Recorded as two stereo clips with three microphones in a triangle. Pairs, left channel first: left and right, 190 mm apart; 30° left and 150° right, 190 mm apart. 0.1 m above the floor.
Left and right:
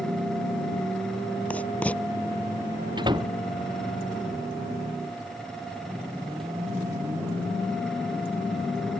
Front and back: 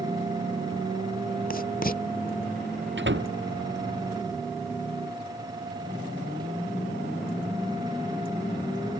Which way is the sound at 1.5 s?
10° left.